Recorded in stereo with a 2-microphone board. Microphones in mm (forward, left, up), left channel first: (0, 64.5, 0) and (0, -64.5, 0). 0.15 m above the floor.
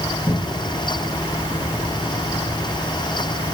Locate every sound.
0.3 s a cupboard door: 40° left (ahead or behind), 7.5 m